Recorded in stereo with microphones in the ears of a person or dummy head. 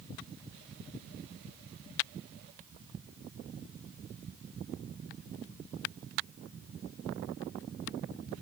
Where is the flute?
I don't hear a flute.